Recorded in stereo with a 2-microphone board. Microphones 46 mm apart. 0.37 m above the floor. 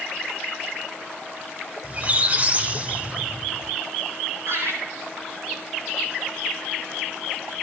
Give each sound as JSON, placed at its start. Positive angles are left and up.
{"t": 1.8, "sound": "a squeak", "side_deg": -30, "distance_m": 0.8}
{"t": 4.5, "sound": "laughter", "side_deg": -65, "distance_m": 6.5}